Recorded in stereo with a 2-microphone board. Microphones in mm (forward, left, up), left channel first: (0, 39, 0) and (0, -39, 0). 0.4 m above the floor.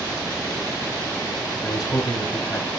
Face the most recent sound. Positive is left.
turn(degrees=50)  # may be behind; listen again after turning